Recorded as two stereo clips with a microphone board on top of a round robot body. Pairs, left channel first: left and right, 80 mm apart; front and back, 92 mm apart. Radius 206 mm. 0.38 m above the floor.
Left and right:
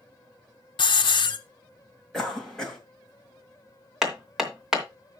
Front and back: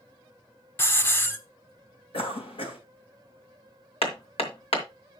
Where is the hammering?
5° right, 2.5 m.